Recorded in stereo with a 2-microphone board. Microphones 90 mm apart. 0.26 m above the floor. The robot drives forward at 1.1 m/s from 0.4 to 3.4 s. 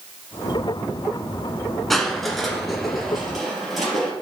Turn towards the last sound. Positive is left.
turn(degrees=0)  # may be behind; listen again after turning